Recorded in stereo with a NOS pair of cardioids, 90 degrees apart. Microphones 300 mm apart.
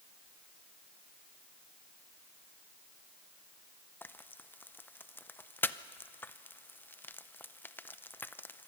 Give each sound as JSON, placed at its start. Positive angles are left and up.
{"t": 4.0, "sound": "frying", "azimuth_deg": 5, "distance_m": 0.6}